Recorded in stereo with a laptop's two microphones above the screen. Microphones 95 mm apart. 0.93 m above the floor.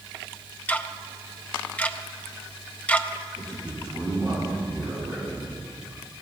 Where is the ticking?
15° left (ahead or behind), 0.5 m.